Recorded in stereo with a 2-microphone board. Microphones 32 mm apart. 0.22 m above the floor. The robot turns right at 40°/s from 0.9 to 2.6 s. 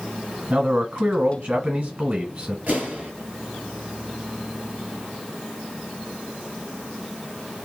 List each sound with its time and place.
0.5 s a man speaking: 100° right, 1.4 m; by 2.6 s 35° right, 1.4 m
2.7 s an explosion: 55° right (ahead or behind), 1.9 m